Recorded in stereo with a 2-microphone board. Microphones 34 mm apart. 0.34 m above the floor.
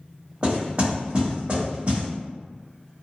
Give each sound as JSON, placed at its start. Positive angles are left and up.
{"t": 0.4, "sound": "knocking", "side_deg": -40, "distance_m": 1.8}